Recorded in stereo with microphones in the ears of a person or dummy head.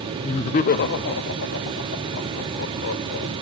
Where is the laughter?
15° left (ahead or behind), 1.1 m; by 3.3 s 80° left, 5 m.